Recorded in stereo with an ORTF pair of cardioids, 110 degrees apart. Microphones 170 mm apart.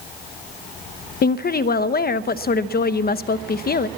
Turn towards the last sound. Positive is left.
turn(degrees=60)